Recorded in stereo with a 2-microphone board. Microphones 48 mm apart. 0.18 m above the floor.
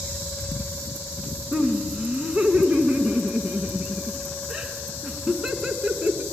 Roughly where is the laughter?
Centre.